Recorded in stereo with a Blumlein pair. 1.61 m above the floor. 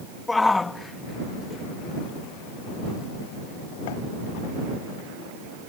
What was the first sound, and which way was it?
A shout, 10° left.